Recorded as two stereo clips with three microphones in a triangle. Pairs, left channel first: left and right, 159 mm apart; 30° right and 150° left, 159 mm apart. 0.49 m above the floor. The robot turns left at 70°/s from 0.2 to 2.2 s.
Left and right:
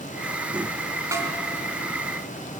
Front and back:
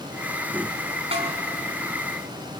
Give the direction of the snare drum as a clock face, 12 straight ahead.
5 o'clock.